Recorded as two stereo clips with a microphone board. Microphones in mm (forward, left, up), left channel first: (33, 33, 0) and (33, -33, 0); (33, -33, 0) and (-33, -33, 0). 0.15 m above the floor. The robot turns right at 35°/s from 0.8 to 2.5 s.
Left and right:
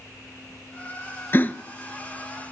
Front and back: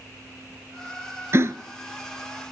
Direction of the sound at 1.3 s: 140° left.